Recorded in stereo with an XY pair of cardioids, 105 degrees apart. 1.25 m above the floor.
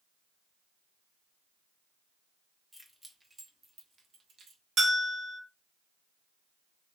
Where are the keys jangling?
5° left, 0.9 m; by 4.6 s 55° right, 1.1 m.